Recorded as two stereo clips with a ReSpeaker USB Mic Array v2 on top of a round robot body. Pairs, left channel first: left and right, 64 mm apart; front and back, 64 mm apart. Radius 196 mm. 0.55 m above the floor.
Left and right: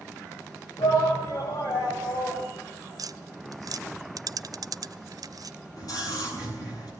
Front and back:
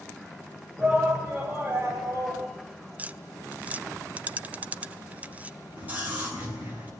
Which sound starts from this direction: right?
Tapping, at 3.0 s.